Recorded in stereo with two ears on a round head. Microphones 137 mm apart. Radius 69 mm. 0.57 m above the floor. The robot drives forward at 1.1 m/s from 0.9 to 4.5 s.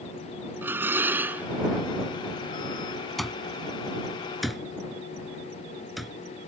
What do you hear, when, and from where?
0.6 s dishes clattering: 15° right (ahead or behind); by 1.5 s 10° right (ahead or behind)
3.2 s an alarm clock: centre (ahead or behind)